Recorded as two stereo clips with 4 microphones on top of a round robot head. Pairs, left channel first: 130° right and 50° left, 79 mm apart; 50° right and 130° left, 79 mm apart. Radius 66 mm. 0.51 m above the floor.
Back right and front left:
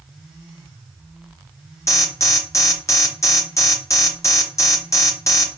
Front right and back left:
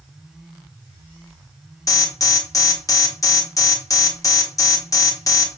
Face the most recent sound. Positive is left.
turn(degrees=-85)